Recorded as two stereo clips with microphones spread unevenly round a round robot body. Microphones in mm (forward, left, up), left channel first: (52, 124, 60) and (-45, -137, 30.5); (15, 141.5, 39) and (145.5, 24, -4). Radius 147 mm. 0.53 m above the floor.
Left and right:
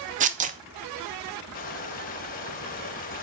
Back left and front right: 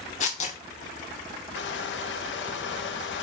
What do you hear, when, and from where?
0.2 s tearing paper: 160° right, 0.6 m
1.6 s crushing: 130° left, 0.7 m